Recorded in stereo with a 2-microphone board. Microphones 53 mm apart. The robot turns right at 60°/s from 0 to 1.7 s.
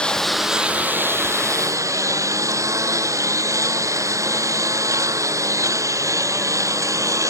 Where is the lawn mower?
160° left; by 7.3 s 100° right.